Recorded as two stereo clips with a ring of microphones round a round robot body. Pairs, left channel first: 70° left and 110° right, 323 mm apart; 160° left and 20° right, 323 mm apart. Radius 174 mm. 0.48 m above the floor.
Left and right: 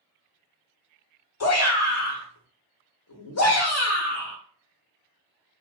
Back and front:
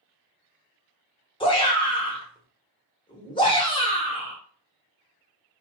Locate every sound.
1.4 s a shout: 85° left, 1.0 m